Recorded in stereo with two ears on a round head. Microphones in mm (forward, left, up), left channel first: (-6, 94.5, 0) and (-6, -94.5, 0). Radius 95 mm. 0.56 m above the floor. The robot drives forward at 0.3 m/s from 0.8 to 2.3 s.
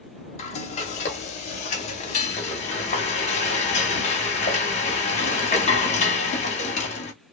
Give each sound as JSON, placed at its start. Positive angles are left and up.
{"t": 0.4, "sound": "frying", "side_deg": 30, "distance_m": 1.0}